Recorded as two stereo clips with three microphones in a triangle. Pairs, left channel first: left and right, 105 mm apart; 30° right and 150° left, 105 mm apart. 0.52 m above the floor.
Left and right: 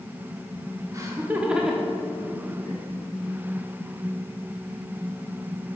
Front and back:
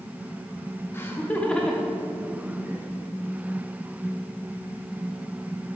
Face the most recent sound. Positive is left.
turn(degrees=95)